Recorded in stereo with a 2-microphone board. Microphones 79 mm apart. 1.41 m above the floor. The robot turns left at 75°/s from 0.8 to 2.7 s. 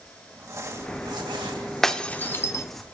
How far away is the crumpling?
About 3 m.